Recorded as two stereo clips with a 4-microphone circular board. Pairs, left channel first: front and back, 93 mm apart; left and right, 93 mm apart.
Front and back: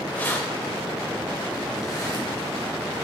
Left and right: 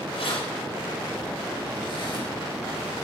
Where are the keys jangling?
75° left, 3 m; by 2.3 s 50° left, 4 m.